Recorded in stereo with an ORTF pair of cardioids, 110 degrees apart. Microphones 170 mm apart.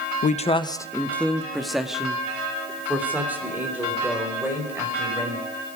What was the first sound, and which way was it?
A man speaking, 55° left.